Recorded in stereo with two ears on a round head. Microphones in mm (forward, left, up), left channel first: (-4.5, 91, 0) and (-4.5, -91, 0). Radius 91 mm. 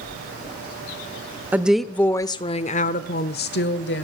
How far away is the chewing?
No chewing in this recording.